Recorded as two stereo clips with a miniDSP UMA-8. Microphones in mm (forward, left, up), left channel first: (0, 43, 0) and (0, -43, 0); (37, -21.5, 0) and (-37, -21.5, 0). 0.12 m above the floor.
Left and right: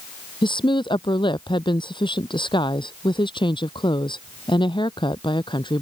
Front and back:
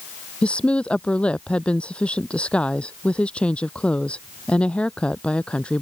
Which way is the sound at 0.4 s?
75° left.